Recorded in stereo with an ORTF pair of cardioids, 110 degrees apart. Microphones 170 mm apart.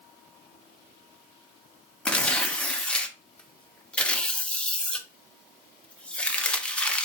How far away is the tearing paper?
About 0.6 m.